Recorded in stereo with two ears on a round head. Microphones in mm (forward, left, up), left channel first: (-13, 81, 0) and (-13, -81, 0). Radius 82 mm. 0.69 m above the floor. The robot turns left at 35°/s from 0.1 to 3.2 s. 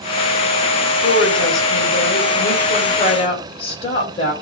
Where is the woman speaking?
110° left, 3.5 m; by 4.3 s 30° left, 3.5 m.